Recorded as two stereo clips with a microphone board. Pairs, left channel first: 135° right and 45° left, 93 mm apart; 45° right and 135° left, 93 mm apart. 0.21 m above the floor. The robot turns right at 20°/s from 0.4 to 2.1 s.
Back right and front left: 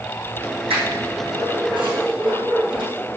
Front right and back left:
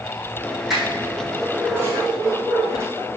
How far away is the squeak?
About 4 m.